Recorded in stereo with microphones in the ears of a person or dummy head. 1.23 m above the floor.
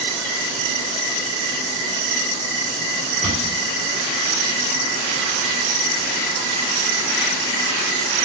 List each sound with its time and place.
3.2 s a cupboard door: 15° left (ahead or behind), 1.7 m